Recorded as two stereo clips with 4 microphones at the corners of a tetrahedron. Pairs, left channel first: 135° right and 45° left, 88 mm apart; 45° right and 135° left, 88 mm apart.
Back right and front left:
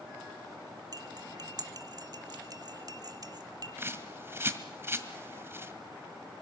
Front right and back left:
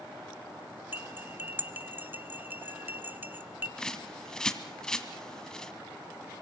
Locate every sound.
0.9 s cutlery clinking: 70° left, 1.3 m
3.8 s a bird: 30° left, 1.5 m